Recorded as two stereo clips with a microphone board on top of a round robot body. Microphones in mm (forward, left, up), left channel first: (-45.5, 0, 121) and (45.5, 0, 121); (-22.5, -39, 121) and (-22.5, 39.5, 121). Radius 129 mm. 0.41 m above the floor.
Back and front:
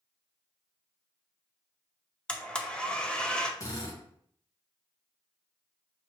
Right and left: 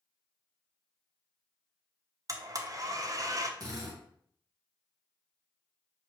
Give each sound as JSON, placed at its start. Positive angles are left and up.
{"t": 2.3, "sound": "a blender", "azimuth_deg": 105, "distance_m": 0.8}
{"t": 3.6, "sound": "a drill", "azimuth_deg": 130, "distance_m": 1.6}